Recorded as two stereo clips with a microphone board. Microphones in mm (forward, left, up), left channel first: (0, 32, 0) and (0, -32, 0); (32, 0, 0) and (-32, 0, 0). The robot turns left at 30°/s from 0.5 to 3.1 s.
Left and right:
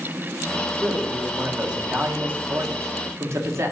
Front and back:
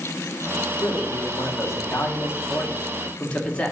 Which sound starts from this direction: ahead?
A man speaking, at 0.8 s.